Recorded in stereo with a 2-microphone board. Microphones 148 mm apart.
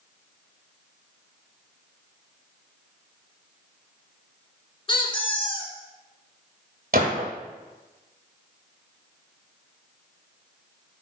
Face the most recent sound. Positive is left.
turn(degrees=-70)  # may be behind; listen again after turning